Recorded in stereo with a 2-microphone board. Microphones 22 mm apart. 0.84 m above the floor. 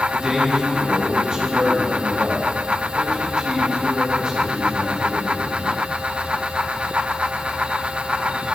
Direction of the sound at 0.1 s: 40° right (ahead or behind).